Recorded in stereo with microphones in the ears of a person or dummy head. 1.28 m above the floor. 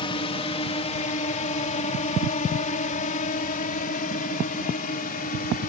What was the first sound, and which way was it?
A drone, 25° left (ahead or behind).